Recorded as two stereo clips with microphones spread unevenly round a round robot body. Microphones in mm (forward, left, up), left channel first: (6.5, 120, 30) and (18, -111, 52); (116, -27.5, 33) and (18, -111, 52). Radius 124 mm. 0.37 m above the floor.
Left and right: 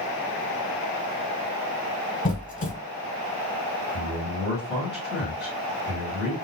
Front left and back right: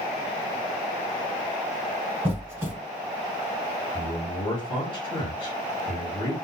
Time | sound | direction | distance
2.2 | a squeak | 140° left | 1.3 m
3.9 | a man speaking | 5° right | 2.0 m